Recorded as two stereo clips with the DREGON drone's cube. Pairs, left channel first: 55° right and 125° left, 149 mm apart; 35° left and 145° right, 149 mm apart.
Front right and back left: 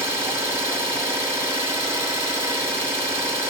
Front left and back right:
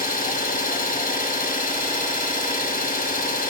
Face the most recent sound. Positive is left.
turn(degrees=50)